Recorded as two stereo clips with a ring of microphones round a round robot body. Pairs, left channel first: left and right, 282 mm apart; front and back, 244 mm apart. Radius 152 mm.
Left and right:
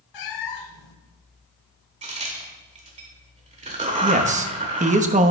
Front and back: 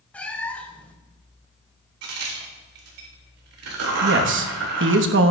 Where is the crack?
155° right, 2 m.